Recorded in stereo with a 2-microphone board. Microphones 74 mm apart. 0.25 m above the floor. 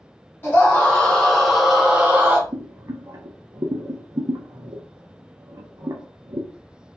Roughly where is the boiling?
Right.